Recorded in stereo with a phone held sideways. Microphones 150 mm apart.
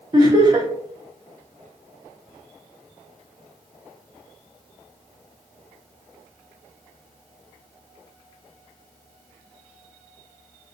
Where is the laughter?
30° right (ahead or behind), 0.8 m.